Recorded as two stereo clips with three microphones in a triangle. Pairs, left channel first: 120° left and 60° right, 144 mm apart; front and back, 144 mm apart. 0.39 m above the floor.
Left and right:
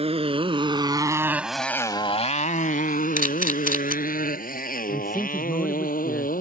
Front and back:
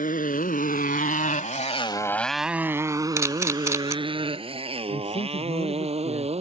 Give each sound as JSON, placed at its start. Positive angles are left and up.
{"t": 0.0, "sound": "a motorcycle", "azimuth_deg": -15}
{"t": 3.2, "sound": "a camera shutter", "azimuth_deg": 110}
{"t": 4.9, "sound": "a man speaking", "azimuth_deg": 30}